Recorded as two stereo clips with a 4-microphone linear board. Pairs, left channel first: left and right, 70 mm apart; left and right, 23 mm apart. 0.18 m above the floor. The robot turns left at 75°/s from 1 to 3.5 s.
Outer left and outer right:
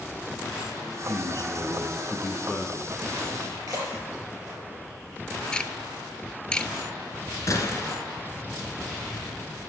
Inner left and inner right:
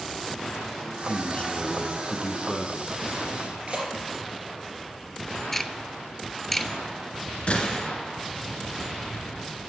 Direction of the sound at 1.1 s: 135° left.